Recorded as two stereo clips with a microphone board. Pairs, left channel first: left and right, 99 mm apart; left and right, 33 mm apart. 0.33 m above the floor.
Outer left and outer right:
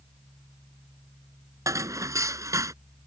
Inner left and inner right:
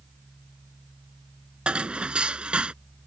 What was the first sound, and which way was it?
Dishes clattering, 35° right (ahead or behind).